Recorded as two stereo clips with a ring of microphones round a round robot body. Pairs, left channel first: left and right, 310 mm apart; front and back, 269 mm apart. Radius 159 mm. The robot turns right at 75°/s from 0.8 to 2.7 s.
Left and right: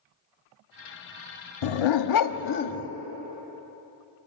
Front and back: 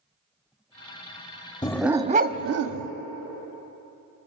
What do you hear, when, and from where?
1.6 s a dog barking: 75° left, 0.9 m; by 2.9 s 155° left, 0.9 m